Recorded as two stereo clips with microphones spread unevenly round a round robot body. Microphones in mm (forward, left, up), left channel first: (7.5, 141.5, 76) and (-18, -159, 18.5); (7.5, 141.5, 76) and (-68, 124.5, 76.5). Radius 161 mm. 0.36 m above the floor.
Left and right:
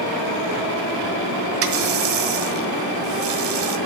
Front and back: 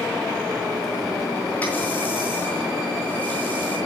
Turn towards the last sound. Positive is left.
turn(degrees=-60)